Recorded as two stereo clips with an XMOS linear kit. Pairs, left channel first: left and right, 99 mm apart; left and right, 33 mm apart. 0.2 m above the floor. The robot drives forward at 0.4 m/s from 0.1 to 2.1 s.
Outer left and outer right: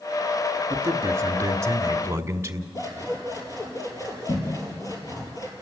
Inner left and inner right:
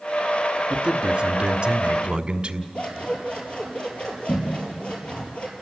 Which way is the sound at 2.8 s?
35° left (ahead or behind).